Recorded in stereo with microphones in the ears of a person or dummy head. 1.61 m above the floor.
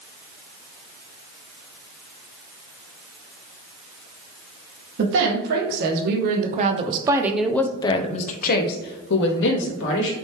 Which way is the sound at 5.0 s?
70° right (ahead or behind).